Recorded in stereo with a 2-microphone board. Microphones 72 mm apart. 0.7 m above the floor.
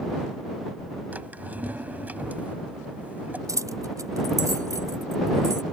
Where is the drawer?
25° right (ahead or behind).